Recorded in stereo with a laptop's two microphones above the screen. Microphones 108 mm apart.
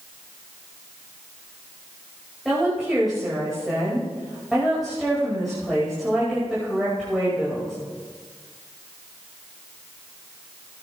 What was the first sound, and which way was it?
A woman speaking, centre (ahead or behind).